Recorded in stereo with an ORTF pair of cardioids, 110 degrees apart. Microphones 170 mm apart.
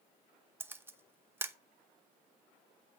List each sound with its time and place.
0.6 s a camera shutter: 15° right, 0.8 m